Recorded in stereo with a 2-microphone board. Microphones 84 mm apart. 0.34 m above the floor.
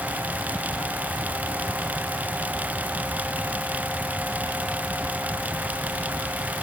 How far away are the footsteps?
No footsteps in this recording.